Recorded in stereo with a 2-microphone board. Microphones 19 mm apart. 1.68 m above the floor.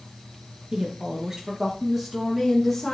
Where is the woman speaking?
50° right (ahead or behind), 2.5 m; by 2.9 s 5° left (ahead or behind), 3 m.